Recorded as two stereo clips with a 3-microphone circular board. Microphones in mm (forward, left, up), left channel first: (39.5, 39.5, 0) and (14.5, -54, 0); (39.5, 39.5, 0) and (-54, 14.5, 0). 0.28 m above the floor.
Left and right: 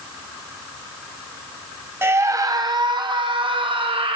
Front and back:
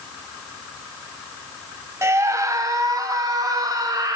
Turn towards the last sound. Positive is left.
turn(degrees=-115)